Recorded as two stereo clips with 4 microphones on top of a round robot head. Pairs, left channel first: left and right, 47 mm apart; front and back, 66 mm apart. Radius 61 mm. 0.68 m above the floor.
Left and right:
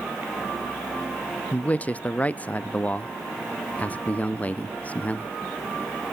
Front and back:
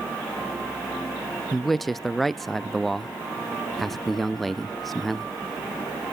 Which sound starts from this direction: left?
A man speaking, at 1.5 s.